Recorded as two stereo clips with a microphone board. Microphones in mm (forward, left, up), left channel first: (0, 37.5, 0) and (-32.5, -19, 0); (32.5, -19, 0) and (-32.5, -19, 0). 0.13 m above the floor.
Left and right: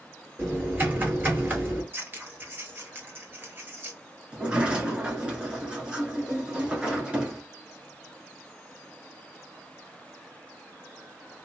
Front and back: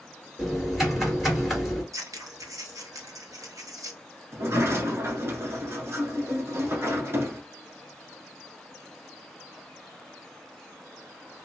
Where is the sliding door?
170° left, 1.1 m.